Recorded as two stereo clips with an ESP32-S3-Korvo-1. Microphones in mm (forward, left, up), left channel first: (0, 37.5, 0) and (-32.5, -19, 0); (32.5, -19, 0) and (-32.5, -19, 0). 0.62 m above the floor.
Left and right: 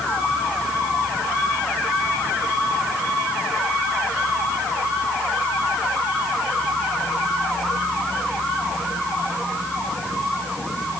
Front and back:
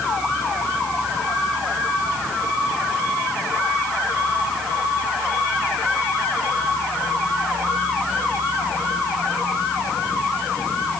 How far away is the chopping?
I don't hear chopping.